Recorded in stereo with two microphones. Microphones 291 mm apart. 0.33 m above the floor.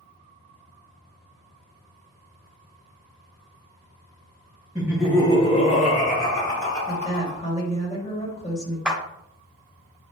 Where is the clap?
5° right (ahead or behind), 0.7 m.